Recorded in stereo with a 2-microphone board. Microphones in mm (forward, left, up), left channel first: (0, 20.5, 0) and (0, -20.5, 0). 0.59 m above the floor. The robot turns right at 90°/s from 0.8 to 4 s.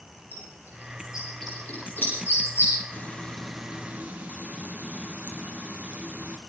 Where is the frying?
130° left, 3 m; by 6.4 s 135° right, 3 m.